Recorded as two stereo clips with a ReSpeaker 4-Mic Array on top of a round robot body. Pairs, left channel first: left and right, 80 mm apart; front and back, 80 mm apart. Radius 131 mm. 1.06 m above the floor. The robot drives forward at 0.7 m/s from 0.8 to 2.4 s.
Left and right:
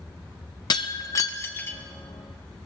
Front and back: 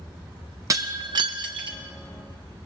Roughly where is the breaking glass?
Behind left.